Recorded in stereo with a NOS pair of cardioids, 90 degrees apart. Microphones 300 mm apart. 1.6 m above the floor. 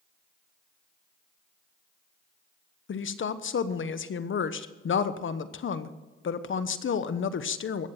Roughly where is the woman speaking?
Ahead left.